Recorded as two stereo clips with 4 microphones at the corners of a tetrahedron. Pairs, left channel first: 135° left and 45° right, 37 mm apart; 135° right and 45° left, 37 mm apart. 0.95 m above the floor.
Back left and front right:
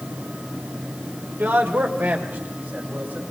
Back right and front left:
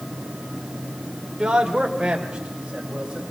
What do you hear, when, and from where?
1.4 s a man speaking: 20° right, 3 m